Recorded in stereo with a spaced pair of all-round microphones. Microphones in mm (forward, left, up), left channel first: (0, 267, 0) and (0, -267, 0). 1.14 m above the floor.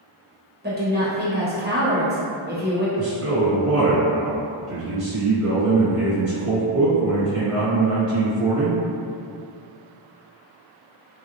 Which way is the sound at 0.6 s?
20° right (ahead or behind).